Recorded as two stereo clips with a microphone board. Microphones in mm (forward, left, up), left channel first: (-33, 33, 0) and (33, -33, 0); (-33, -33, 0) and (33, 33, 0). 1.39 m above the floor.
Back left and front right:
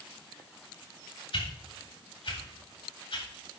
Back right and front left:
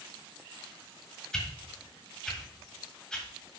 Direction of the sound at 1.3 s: 145° left.